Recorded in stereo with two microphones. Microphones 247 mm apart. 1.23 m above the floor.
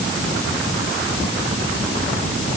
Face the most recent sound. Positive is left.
No sound to turn to.